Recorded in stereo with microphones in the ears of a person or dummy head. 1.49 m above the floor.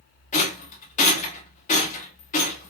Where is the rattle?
35° left (ahead or behind), 1.3 m.